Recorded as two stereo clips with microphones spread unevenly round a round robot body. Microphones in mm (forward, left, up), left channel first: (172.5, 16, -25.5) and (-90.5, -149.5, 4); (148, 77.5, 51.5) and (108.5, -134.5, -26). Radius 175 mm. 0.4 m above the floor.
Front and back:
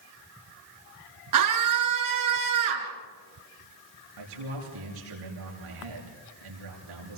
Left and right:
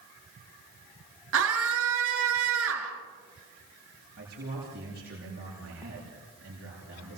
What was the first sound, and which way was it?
A scream, 125° right.